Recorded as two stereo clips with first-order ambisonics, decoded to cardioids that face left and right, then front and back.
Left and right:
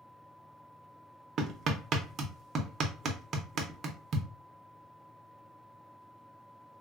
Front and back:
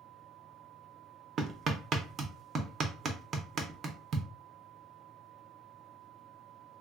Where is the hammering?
135° right, 0.6 m.